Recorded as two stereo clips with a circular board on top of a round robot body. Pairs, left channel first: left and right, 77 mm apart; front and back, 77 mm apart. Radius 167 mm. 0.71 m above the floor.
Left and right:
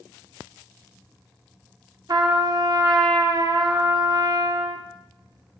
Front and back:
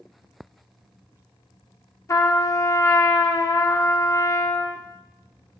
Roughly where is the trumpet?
Ahead right.